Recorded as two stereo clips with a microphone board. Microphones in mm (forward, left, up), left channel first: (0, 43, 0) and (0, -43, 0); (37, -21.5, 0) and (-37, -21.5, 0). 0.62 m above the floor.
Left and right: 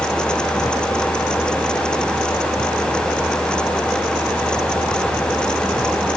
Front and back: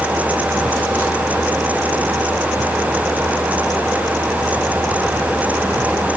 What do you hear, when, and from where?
Only background noise.